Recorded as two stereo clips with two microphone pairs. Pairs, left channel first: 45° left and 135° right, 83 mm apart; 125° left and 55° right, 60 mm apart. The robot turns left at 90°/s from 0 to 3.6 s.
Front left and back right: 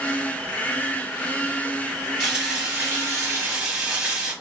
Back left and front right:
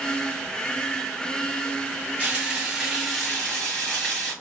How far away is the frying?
About 1.4 m.